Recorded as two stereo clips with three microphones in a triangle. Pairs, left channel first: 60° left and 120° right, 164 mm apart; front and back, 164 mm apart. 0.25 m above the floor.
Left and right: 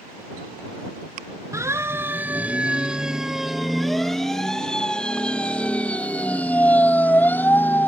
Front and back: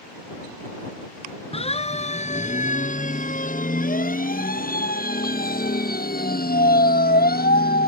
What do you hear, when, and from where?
1.5 s a siren: 50° right; by 7.9 s 20° right